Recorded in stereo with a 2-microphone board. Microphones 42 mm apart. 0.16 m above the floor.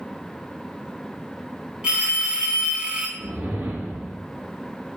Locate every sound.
1.8 s a phone ringing: 25° right (ahead or behind), 0.7 m
3.2 s a whoosh: 65° right (ahead or behind), 1.1 m